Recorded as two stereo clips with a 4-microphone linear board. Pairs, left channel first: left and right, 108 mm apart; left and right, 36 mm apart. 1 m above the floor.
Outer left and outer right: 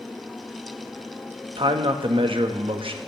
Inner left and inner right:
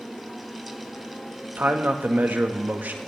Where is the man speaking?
55° right (ahead or behind), 1.2 m.